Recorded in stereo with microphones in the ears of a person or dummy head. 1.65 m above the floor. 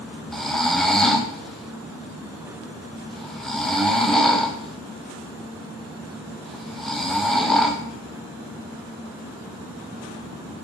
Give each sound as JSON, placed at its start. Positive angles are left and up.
{"t": 0.3, "sound": "snoring", "side_deg": 5, "distance_m": 0.6}